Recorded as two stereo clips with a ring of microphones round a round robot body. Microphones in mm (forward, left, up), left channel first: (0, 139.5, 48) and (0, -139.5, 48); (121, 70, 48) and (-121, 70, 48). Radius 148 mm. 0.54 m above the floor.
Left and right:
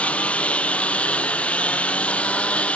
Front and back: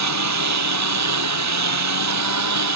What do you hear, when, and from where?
0.0 s a lawn mower: 175° left